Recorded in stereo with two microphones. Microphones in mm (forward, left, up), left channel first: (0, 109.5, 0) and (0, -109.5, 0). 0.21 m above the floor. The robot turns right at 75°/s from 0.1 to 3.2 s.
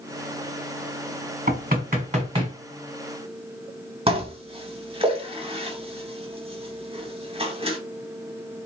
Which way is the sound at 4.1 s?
25° right (ahead or behind).